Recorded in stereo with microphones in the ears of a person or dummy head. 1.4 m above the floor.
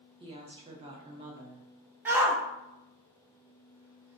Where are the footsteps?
I don't hear footsteps.